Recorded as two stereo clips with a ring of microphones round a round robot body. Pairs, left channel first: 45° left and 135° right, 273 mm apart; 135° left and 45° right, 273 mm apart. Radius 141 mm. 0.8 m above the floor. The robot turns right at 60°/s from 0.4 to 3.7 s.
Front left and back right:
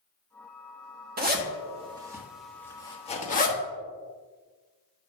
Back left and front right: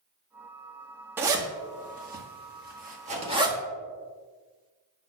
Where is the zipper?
120° right, 1.1 m; by 3.6 s 25° left, 1.1 m.